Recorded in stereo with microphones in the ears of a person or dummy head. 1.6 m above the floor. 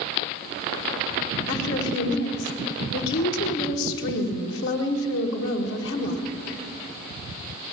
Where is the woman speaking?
75° left (ahead or behind), 1.5 m.